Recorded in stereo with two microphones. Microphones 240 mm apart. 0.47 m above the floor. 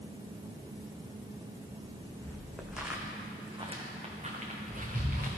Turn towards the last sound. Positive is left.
turn(degrees=-40)  # may be behind; listen again after turning